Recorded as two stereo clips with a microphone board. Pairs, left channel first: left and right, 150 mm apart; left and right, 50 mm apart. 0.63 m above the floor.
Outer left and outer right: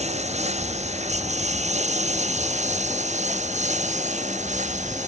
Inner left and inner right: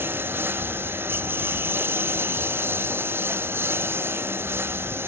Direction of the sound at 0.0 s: 50° right (ahead or behind).